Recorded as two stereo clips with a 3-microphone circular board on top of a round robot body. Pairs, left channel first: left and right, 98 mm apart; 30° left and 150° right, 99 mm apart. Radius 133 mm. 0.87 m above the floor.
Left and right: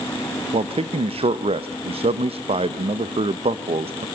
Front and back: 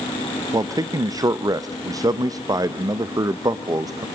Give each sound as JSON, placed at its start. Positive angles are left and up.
{"t": 0.5, "sound": "a man speaking", "azimuth_deg": -100, "distance_m": 0.8}